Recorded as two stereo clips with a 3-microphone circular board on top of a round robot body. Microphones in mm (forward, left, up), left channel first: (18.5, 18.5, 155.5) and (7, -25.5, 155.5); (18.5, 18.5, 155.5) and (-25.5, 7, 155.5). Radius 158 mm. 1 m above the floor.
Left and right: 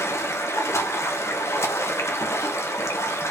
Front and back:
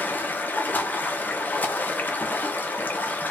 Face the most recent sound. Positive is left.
turn(degrees=65)